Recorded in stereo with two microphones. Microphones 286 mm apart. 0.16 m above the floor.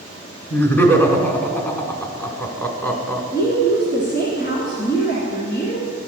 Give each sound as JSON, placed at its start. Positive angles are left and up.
{"t": 0.5, "sound": "laughter", "side_deg": 10, "distance_m": 1.1}
{"t": 3.3, "sound": "a woman speaking", "side_deg": 35, "distance_m": 1.6}